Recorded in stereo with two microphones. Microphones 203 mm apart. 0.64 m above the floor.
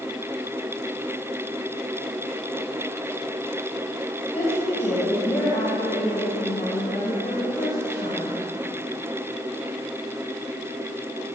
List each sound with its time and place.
4.3 s a woman speaking: 35° left (ahead or behind), 3 m